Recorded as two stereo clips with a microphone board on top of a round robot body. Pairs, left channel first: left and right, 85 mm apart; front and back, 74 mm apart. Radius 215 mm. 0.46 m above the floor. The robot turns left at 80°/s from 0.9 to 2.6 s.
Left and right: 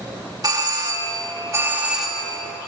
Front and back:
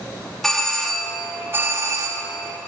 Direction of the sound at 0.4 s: 85° right.